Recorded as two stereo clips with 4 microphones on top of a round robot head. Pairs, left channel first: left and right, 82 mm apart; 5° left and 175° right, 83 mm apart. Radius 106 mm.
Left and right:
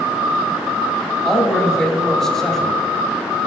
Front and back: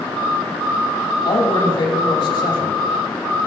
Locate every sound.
1.2 s a man speaking: 5° left, 2.5 m